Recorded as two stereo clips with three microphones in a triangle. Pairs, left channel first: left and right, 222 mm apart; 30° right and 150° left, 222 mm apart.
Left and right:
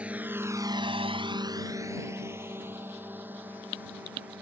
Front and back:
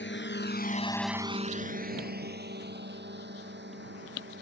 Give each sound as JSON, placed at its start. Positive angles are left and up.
{"t": 0.0, "sound": "a drone", "azimuth_deg": -5}